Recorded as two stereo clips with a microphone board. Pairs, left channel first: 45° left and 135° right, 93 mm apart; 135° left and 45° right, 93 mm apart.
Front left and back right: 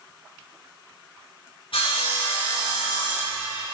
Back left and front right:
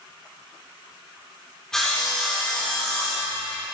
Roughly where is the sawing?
Ahead left.